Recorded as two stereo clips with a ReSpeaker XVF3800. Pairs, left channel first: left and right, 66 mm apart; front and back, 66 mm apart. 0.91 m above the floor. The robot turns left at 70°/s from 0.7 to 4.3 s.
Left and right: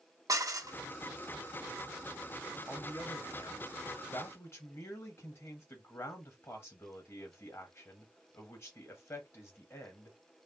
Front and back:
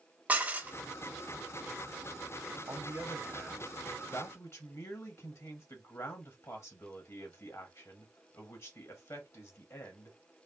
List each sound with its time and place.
0.3 s dishes clattering: 115° right, 0.5 m; by 0.8 s 120° right, 0.5 m
2.7 s a man speaking: 155° left, 1.1 m; by 10.2 s 40° left, 1.1 m